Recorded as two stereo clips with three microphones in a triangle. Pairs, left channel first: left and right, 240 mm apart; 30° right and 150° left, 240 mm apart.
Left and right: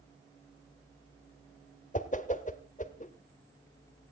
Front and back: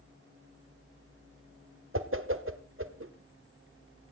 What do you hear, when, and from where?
1.9 s a whoosh: 140° left, 1.3 m